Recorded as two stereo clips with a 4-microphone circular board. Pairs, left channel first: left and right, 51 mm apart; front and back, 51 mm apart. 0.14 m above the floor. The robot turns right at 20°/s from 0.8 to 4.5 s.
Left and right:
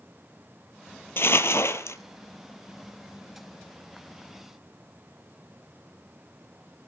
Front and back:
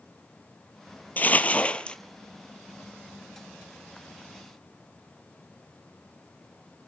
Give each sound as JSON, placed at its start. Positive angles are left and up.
{"t": 1.2, "sound": "crumpling", "azimuth_deg": 55, "distance_m": 1.0}